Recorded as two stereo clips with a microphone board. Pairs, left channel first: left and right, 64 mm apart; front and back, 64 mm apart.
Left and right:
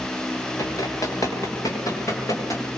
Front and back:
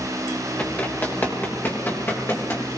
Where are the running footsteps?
65° left, 7 m; by 2.6 s 55° left, 7.5 m.